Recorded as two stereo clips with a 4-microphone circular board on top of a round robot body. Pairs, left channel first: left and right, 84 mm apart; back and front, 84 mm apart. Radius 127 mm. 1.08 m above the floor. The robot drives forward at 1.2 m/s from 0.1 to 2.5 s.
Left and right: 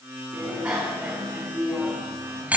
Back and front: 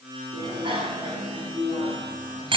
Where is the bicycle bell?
10° right, 8.5 m; by 2.6 s 15° right, 6 m.